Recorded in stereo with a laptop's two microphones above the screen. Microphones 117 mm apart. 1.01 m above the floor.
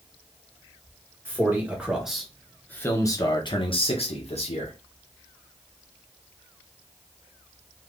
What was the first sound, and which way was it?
A man speaking, 20° right (ahead or behind).